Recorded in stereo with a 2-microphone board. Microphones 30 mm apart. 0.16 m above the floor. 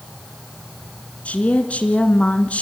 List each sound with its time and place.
1.2 s a woman speaking: 50° left (ahead or behind), 2 m